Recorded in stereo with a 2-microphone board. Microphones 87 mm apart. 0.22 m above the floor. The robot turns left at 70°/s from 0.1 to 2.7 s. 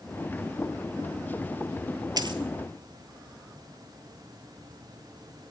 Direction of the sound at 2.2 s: 50° right (ahead or behind).